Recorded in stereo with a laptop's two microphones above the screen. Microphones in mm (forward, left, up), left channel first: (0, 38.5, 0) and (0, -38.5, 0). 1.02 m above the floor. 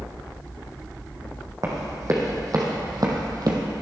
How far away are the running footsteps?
About 3 m.